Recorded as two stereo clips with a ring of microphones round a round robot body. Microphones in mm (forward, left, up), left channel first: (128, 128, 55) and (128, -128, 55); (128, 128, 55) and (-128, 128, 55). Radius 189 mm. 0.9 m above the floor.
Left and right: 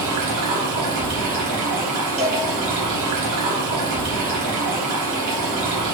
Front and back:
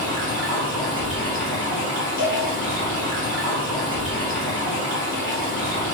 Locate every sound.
0.0 s running water: 120° right, 0.8 m
2.2 s a cowbell: 5° left, 1.4 m